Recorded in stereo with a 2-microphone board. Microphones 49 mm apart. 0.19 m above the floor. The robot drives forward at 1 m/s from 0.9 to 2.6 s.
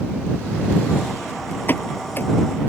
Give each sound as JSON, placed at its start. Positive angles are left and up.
{"t": 1.7, "sound": "a pop", "side_deg": 40}